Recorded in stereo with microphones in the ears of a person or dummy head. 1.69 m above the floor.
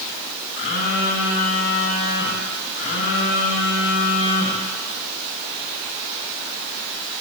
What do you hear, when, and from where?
0.6 s a phone buzzing: 60° left (ahead or behind), 2.5 m